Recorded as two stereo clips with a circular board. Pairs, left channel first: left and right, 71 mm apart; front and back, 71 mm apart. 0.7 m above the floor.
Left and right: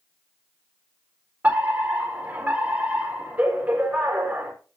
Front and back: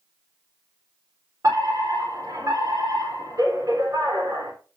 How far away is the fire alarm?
About 4 m.